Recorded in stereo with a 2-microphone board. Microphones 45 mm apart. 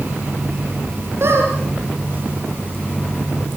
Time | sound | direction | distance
1.2 | a squeak | 60° right (ahead or behind) | 6.5 m